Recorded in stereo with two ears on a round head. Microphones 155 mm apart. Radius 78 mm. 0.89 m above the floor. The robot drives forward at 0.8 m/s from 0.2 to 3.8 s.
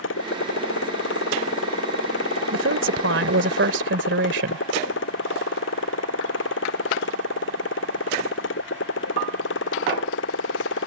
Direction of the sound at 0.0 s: 90° left.